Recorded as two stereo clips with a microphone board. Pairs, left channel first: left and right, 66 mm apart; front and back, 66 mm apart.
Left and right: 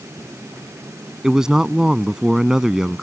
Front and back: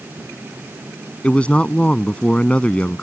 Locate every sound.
1.2 s a man speaking: 25° right